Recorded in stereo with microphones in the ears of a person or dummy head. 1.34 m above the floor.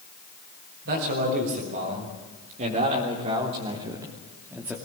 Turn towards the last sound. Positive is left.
turn(degrees=-5)  # may be behind; listen again after turning